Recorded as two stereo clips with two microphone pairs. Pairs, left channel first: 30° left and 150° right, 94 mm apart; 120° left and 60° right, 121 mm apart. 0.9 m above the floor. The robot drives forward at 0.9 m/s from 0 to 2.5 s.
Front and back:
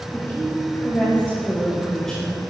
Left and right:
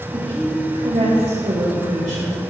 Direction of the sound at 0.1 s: 30° right.